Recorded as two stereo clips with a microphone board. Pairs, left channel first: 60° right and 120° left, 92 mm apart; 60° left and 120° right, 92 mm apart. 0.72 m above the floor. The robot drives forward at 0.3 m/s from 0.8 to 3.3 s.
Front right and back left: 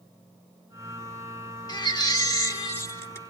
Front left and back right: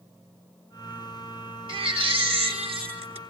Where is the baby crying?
100° right, 1.0 m; by 3.2 s 120° right, 1.2 m.